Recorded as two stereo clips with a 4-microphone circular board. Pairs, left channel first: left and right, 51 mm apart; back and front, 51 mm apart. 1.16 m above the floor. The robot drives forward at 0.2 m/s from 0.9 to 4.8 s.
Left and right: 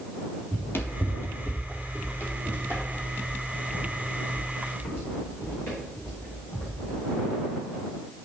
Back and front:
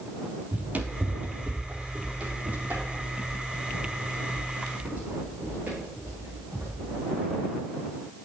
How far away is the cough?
I don't hear a cough.